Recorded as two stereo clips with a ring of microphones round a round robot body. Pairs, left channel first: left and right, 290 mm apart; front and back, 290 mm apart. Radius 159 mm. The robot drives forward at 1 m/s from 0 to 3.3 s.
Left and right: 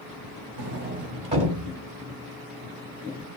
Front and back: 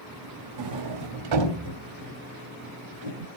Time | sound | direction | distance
0.6 | a sliding door | 145° right | 0.7 m